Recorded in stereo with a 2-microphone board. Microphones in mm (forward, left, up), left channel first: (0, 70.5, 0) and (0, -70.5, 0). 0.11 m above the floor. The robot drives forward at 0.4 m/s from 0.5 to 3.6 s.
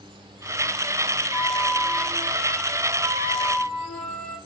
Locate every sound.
1.3 s a flute: 10° left (ahead or behind), 1.1 m; by 4.4 s 5° left (ahead or behind), 1.9 m